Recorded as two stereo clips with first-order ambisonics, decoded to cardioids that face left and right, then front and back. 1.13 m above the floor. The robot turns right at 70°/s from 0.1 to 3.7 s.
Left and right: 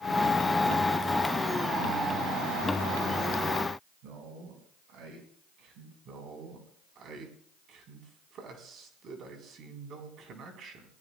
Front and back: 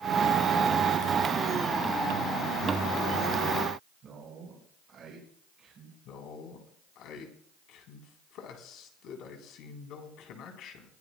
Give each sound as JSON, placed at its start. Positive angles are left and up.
{"t": 4.0, "sound": "a man speaking", "azimuth_deg": -115, "distance_m": 5.0}
{"t": 6.0, "sound": "a man speaking", "azimuth_deg": -40, "distance_m": 3.5}